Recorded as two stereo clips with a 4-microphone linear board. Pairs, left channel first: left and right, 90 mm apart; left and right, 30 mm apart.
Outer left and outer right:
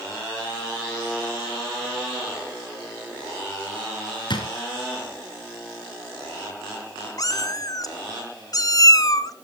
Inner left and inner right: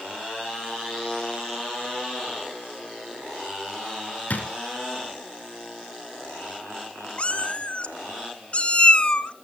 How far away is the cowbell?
I don't hear a cowbell.